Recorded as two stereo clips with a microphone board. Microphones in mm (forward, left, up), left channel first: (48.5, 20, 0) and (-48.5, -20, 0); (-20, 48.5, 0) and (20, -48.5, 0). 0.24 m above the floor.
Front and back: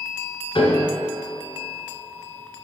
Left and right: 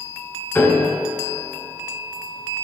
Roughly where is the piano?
Ahead left.